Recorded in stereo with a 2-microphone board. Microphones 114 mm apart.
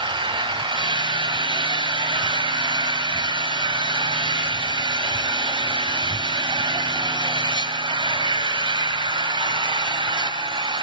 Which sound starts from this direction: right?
An engine running, at 0.0 s.